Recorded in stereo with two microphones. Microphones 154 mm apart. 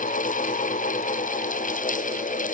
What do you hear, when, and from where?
Only background noise.